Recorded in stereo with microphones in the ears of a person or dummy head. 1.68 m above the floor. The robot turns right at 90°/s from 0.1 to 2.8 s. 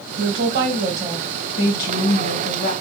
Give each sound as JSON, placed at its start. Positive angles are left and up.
{"t": 0.2, "sound": "a woman speaking", "azimuth_deg": -90, "distance_m": 1.1}